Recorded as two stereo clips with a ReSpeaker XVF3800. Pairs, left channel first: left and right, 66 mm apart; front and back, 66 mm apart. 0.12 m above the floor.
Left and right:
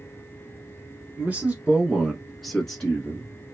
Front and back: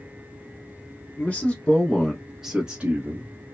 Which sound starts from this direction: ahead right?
A man speaking, at 1.2 s.